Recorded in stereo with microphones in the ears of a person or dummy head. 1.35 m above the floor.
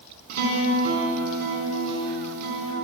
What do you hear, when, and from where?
0.3 s a guitar: 60° right (ahead or behind), 5 m